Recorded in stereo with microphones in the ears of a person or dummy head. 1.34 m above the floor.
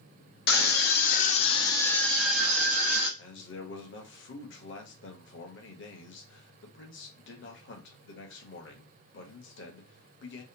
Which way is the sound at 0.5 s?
45° left (ahead or behind).